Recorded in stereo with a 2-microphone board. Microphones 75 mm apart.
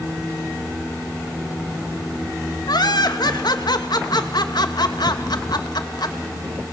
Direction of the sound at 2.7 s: 70° left (ahead or behind).